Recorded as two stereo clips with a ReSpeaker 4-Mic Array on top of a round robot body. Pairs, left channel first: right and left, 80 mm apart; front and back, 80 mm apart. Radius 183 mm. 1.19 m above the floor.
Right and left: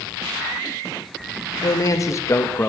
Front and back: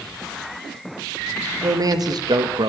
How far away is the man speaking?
About 2 m.